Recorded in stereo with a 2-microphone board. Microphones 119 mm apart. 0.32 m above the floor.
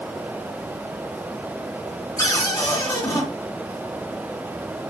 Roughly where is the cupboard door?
Left.